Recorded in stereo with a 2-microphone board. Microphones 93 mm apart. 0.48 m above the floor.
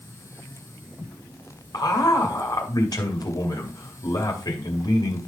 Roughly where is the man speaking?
Left.